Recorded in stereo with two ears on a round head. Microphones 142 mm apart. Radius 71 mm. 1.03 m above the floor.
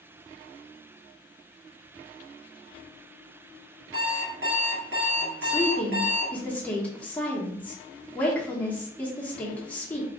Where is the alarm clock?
85° right, 1.6 m.